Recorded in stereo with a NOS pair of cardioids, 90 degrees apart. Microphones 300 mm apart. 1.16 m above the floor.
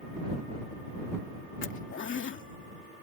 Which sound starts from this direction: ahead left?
A zipper, at 1.6 s.